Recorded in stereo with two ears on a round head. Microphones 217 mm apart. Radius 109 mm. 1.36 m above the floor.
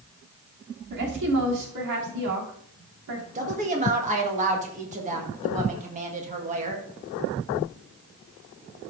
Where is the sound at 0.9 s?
85° right, 3 m.